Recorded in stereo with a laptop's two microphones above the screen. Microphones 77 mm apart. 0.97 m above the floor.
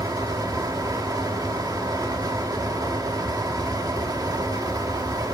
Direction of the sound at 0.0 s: 55° right (ahead or behind).